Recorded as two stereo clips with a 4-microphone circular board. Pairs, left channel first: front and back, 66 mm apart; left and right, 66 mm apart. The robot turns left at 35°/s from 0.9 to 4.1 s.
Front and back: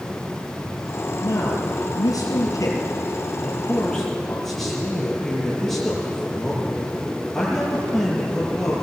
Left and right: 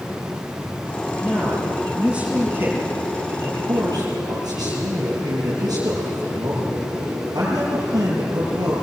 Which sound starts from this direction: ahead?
A man speaking, at 1.2 s.